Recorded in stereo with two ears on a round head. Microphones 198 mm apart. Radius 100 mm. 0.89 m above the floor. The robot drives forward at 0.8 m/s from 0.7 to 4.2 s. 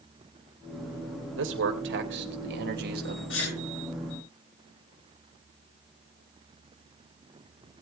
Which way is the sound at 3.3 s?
65° left (ahead or behind).